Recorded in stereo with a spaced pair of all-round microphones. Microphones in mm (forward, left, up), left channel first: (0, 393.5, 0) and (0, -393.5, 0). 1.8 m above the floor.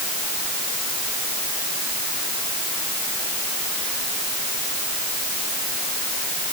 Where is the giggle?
No giggle in this recording.